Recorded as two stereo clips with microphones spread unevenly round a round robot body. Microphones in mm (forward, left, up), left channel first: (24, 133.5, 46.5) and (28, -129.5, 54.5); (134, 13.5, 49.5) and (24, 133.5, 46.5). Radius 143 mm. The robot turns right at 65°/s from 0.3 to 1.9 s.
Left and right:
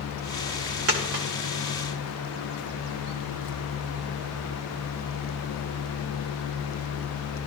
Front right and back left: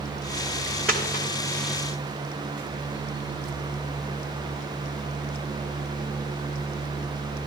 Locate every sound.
0.9 s a dropped coin: 135° right, 1.4 m; by 1.2 s 110° right, 1.4 m